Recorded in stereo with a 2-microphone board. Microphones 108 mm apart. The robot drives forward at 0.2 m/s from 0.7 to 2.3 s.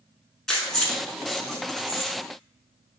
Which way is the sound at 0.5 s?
5° left (ahead or behind).